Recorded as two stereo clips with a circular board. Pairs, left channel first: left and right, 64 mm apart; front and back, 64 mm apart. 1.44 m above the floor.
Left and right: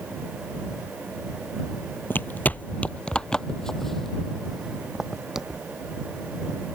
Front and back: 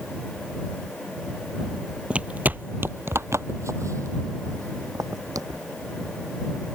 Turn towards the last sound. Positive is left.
turn(degrees=-175)